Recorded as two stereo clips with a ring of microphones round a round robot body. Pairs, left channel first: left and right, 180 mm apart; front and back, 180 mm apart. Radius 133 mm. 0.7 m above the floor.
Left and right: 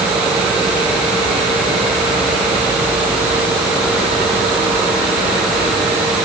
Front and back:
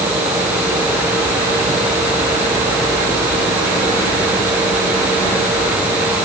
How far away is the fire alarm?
I don't hear a fire alarm.